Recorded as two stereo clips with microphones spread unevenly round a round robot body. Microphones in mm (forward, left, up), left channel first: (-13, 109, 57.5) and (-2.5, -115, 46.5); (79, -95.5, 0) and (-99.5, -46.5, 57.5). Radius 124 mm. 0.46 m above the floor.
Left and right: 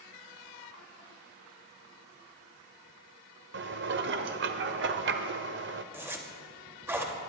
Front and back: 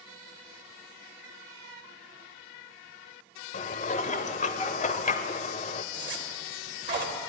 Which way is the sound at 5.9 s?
165° right.